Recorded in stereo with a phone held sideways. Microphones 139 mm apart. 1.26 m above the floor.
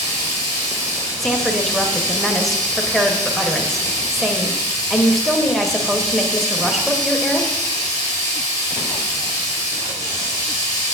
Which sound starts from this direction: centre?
A woman speaking, at 1.2 s.